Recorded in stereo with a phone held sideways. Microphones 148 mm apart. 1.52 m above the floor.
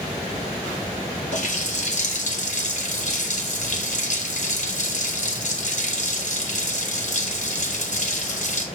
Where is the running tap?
55° left (ahead or behind), 1.5 m.